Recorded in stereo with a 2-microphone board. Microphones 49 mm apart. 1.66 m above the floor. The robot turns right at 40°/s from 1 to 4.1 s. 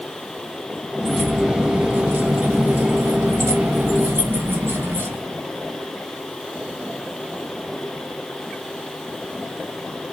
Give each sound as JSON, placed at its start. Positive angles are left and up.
{"t": 1.0, "sound": "keys jangling", "azimuth_deg": 180, "distance_m": 2.0}